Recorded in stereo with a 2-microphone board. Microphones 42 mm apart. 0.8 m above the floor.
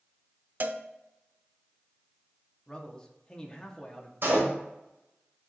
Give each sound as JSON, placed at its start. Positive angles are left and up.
{"t": 0.6, "sound": "a cowbell", "side_deg": -45, "distance_m": 0.5}
{"t": 2.7, "sound": "a man speaking", "side_deg": 20, "distance_m": 1.3}
{"t": 4.2, "sound": "a door slam", "side_deg": -60, "distance_m": 2.5}